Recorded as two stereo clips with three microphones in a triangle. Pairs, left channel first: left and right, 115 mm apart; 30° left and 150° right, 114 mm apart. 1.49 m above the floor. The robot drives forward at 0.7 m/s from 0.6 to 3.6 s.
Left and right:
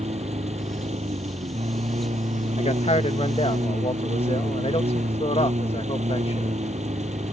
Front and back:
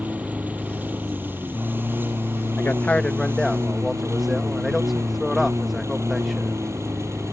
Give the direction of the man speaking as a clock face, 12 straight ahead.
9 o'clock.